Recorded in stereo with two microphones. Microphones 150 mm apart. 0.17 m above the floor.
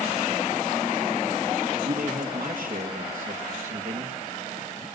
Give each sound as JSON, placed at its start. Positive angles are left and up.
{"t": 1.8, "sound": "a man speaking", "side_deg": -55, "distance_m": 3.0}